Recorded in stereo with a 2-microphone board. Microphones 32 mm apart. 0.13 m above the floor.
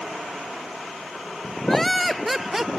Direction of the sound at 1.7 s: 5° left (ahead or behind).